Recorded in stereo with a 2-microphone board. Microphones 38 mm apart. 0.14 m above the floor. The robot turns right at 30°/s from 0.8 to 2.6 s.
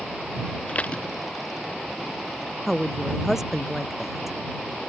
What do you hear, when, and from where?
0.7 s dishes clattering: 35° left (ahead or behind); by 1.0 s 30° left (ahead or behind)
2.7 s a woman speaking: 5° right (ahead or behind)